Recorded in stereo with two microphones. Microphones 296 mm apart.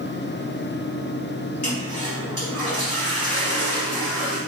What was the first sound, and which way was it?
A toilet flushing, 70° left (ahead or behind).